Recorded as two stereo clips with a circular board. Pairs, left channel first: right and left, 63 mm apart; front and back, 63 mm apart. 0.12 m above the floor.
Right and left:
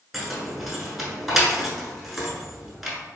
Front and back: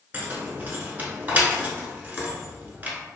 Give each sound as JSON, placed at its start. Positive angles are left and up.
{"t": 0.1, "sound": "keys jangling", "azimuth_deg": 175, "distance_m": 0.8}